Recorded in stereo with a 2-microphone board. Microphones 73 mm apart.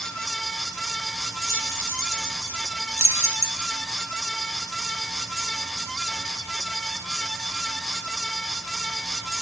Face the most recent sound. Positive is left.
turn(degrees=-35)  # may be behind; listen again after turning